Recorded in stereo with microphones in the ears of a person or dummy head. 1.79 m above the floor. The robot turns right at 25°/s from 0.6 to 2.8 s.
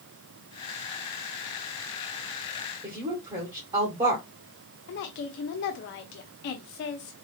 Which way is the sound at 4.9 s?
50° left (ahead or behind).